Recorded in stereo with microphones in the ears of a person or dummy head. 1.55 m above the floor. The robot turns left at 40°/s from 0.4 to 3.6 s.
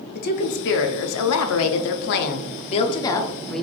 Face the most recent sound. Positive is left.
turn(degrees=0)